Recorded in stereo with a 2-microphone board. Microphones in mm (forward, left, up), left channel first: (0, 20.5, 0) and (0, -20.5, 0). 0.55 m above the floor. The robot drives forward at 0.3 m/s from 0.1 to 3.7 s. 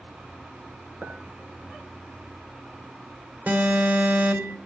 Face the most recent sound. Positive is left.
turn(degrees=-60)  # may be behind; listen again after turning